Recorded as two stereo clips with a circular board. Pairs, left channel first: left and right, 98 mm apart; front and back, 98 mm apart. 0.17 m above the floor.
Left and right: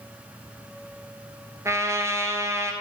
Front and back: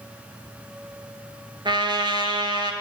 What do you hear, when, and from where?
1.6 s a trumpet: 150° right, 0.6 m